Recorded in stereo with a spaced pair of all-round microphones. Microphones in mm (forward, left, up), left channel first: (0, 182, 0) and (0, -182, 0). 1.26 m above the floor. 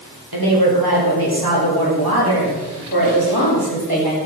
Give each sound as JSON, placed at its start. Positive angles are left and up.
{"t": 0.3, "sound": "a woman speaking", "side_deg": -80, "distance_m": 6.0}